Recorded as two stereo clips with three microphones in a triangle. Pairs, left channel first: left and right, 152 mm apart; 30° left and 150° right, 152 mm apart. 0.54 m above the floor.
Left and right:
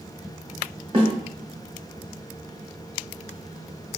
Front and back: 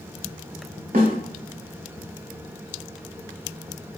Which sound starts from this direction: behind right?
A snare drum, at 0.9 s.